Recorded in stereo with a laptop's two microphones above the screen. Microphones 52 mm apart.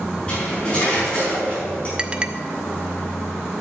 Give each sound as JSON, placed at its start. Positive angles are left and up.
{"t": 0.3, "sound": "cutlery clinking", "side_deg": 20, "distance_m": 5.0}
{"t": 2.0, "sound": "a clink", "side_deg": -20, "distance_m": 0.8}